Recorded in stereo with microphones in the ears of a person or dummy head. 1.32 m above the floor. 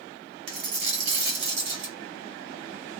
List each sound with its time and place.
0.5 s a dropped coin: 55° right (ahead or behind), 1.4 m